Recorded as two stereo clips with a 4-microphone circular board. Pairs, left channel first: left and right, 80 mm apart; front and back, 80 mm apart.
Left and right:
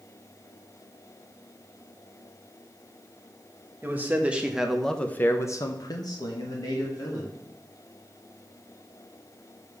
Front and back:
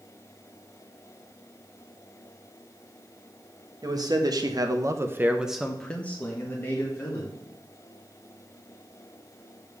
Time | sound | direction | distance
3.8 | a man speaking | 155° right | 1.3 m